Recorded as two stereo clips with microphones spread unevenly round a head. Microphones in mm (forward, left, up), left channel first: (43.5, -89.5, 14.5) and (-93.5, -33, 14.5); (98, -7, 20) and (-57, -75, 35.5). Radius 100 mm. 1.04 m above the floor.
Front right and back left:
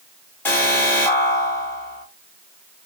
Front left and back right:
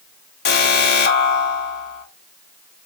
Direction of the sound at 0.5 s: 60° left.